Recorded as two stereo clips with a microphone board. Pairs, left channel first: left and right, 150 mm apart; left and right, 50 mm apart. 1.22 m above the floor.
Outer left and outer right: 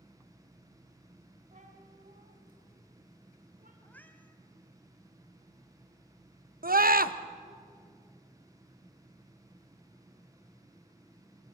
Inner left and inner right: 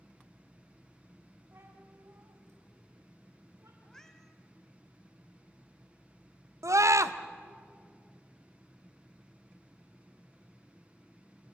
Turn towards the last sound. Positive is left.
turn(degrees=-85)